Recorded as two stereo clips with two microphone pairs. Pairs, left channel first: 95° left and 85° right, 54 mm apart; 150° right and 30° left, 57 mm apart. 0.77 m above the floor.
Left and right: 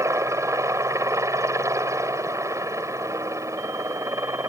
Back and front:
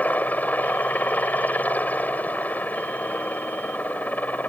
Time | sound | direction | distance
0.0 | a helicopter | 90° right | ?